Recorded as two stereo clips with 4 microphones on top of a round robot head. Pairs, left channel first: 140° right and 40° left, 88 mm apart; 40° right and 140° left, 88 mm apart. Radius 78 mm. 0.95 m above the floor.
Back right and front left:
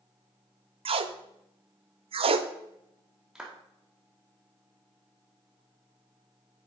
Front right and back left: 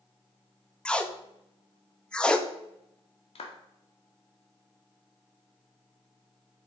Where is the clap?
40° right, 2.0 m.